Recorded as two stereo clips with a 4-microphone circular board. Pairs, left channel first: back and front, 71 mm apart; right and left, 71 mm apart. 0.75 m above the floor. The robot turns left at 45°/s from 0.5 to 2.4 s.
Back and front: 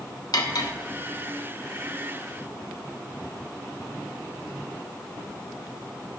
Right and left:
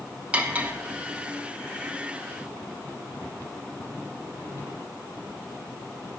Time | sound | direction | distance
0.3 | cutlery clinking | 160° left | 0.7 m